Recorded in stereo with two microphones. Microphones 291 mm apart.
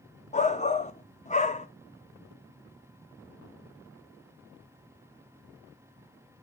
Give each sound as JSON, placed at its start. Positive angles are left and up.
{"t": 0.3, "sound": "a shout", "side_deg": 25, "distance_m": 1.1}